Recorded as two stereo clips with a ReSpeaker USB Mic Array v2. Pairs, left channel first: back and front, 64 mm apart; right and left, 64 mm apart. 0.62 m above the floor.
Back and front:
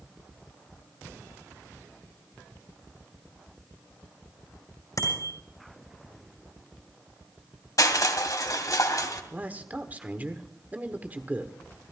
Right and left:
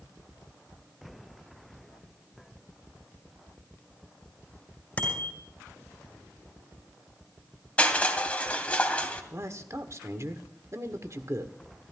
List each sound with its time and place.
5.0 s a bicycle bell: 155° right, 5.5 m
7.8 s crushing: 160° right, 2.0 m
9.3 s a man speaking: 60° left, 1.5 m